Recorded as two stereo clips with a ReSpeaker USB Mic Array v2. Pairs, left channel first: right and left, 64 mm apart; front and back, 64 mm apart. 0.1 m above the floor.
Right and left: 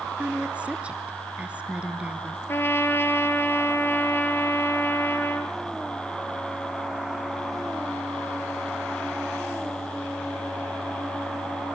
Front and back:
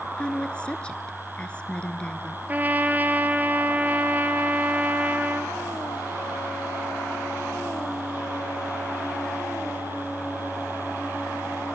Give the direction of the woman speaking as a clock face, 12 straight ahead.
10 o'clock.